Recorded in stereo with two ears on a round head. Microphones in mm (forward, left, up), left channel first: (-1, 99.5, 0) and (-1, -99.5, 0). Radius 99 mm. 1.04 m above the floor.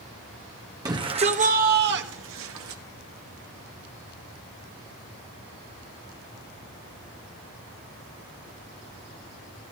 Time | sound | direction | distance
0.8 | a shout | 15° right (ahead or behind) | 1.3 m